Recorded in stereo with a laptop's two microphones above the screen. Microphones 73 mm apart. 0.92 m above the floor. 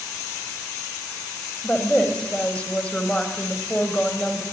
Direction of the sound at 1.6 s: 20° left (ahead or behind).